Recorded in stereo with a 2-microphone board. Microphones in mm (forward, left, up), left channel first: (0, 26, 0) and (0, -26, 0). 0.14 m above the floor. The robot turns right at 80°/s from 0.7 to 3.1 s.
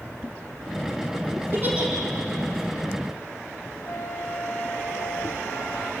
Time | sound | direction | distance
1.5 | a giggle | 45° right (ahead or behind) | 6 m
3.9 | a flute | 55° left (ahead or behind) | 4.5 m